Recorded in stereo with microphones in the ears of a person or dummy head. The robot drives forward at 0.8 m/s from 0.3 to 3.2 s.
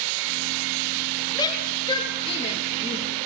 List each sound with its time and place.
1.4 s a shout: 25° left (ahead or behind), 3 m; by 3.2 s 45° left (ahead or behind), 1.8 m